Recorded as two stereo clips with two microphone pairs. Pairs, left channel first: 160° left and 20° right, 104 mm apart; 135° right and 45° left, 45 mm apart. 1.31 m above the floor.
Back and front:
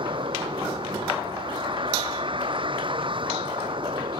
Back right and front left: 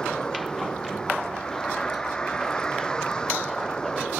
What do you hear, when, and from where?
0.0 s a vehicle: 60° right